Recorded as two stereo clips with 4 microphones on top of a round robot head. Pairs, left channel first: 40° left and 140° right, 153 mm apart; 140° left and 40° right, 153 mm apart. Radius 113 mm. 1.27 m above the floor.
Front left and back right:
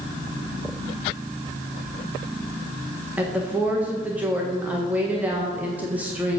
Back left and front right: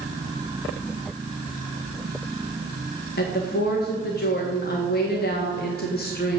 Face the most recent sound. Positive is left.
turn(degrees=135)